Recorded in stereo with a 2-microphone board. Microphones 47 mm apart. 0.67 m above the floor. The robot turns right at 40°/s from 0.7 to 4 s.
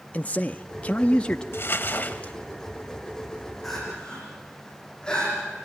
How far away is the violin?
I don't hear a violin.